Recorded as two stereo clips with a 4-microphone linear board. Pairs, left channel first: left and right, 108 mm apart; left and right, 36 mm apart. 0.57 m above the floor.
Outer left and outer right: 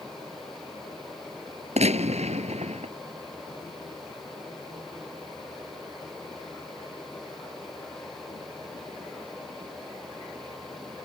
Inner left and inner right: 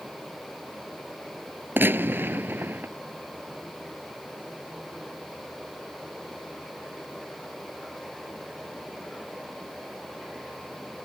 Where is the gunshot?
80° right.